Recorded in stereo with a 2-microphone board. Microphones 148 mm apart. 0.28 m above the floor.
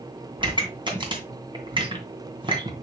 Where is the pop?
35° right (ahead or behind), 2.5 m.